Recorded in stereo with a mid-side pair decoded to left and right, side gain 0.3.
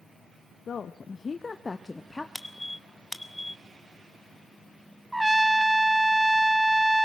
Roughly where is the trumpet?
Ahead.